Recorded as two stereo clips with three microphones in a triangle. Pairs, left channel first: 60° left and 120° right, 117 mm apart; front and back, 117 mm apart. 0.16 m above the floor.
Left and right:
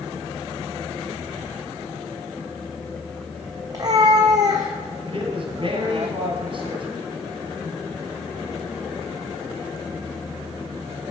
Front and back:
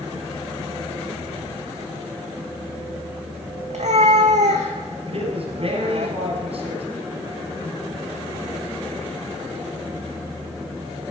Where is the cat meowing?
175° right, 1.5 m.